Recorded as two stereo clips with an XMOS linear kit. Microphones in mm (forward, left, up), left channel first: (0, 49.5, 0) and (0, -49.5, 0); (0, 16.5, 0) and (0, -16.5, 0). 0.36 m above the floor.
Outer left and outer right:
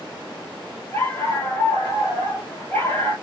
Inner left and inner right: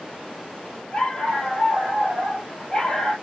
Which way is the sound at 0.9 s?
20° left (ahead or behind).